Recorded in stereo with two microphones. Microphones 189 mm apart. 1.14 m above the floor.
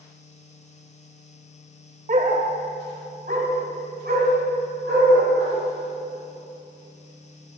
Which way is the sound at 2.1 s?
40° right (ahead or behind).